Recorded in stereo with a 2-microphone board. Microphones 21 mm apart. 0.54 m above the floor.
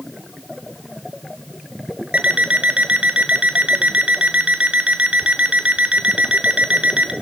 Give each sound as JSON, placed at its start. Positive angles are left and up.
{"t": 2.1, "sound": "an alarm clock", "side_deg": -80, "distance_m": 2.0}